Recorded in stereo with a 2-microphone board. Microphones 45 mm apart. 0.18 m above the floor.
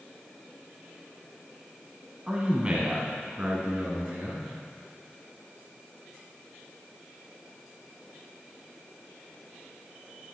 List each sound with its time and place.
2.3 s a man speaking: 20° right (ahead or behind), 1.3 m; by 4.5 s 35° right (ahead or behind), 2.5 m